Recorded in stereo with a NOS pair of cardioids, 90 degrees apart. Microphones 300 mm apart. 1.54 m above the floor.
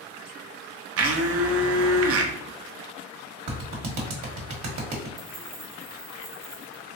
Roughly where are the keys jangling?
Ahead right.